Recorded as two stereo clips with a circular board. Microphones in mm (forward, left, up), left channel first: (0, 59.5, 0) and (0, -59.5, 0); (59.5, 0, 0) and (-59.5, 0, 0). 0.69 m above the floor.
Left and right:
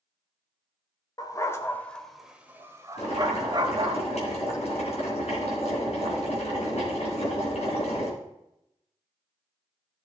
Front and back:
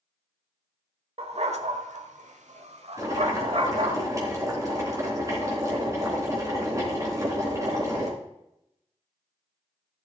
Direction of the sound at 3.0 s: 115° left.